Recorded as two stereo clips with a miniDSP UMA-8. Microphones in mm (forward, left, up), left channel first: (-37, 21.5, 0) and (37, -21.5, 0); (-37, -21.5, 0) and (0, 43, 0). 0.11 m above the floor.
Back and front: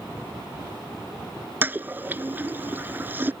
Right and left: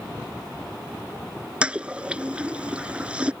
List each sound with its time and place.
1.6 s a toilet flushing: 5° left